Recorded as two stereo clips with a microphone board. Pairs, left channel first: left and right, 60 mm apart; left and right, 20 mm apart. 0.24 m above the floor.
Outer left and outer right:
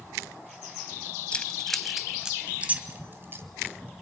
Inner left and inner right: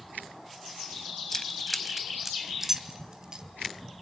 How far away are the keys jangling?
About 1.1 m.